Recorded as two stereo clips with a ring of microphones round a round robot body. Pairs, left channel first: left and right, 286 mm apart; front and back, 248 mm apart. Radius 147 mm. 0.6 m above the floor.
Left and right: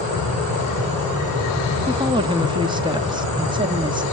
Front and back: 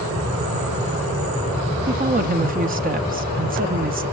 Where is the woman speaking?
155° right, 0.9 m.